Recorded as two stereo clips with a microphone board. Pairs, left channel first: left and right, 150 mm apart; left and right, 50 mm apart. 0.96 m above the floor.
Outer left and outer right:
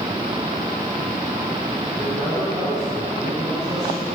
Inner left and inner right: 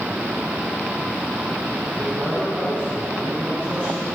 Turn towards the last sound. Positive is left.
turn(degrees=20)  # may be behind; listen again after turning